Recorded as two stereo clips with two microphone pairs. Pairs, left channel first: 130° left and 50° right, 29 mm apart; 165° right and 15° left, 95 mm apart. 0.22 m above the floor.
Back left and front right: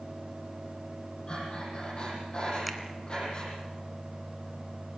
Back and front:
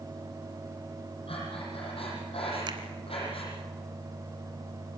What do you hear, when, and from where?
1.3 s breathing: 175° right, 8 m
2.7 s a finger snap: 40° left, 1.7 m